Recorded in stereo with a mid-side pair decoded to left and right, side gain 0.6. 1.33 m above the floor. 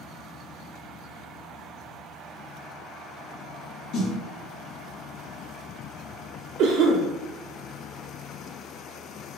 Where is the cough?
65° right, 0.5 m.